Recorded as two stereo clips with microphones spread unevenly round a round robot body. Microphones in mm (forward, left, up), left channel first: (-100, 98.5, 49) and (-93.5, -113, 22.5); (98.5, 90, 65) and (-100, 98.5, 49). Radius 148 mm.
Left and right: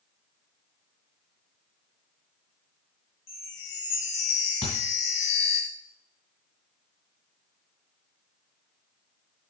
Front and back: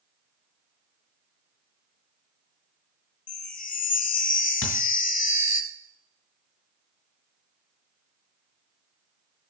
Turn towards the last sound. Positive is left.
turn(degrees=20)